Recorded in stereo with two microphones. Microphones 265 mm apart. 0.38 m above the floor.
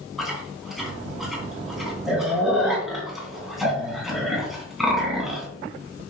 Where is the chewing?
Centre (ahead or behind), 3 m.